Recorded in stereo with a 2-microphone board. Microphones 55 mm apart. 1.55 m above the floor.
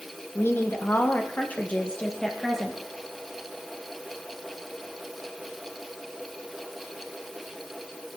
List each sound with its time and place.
0.3 s a woman speaking: 50° left (ahead or behind), 2.5 m; by 2.8 s 5° left (ahead or behind), 2 m